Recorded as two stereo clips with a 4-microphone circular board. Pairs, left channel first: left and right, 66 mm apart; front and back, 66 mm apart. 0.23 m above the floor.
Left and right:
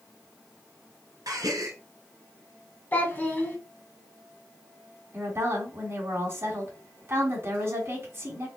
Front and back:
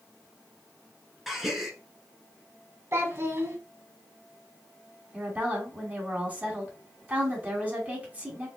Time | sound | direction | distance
1.3 | a gasp | 95° right | 1.1 m
2.9 | a child speaking | 145° left | 1.1 m
5.1 | a woman speaking | 125° right | 2.5 m